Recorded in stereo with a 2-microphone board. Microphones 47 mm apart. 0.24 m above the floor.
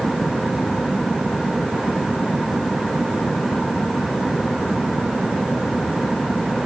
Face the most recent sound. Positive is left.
No sound to turn to.